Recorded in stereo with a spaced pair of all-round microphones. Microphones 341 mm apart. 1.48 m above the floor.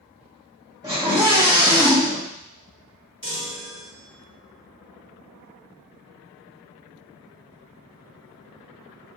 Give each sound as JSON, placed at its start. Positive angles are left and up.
{"t": 0.8, "sound": "a scream", "side_deg": -10, "distance_m": 2.5}
{"t": 3.2, "sound": "a chime", "side_deg": -35, "distance_m": 1.8}